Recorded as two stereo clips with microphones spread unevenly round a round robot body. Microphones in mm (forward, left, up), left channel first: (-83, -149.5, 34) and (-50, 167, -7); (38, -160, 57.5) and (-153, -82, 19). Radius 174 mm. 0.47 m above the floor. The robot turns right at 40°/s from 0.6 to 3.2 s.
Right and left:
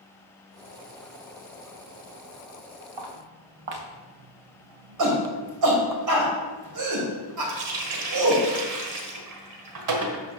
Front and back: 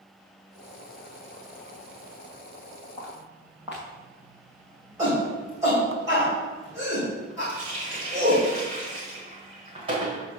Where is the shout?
85° left, 2.5 m.